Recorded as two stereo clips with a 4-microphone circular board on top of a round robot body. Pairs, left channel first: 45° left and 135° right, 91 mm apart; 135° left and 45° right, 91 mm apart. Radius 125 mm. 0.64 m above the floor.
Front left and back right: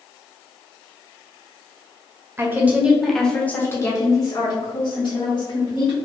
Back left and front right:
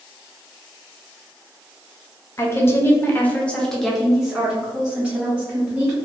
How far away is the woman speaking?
About 1.0 m.